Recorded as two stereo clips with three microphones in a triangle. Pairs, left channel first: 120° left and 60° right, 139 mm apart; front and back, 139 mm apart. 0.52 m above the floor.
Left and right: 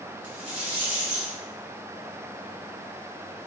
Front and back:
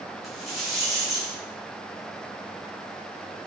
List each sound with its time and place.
0.2 s a rattle: 90° right, 1.4 m